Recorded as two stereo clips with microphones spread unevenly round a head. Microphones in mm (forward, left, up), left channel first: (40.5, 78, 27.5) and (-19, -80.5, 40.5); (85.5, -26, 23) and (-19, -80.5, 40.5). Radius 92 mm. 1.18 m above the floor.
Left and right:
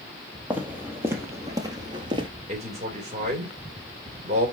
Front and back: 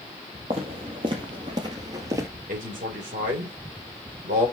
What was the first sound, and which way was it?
Footsteps, 175° left.